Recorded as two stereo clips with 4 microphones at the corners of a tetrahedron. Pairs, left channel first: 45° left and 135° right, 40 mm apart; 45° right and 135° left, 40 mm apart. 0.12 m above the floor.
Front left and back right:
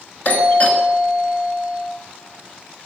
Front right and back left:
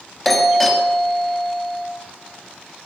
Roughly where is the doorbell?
Ahead left.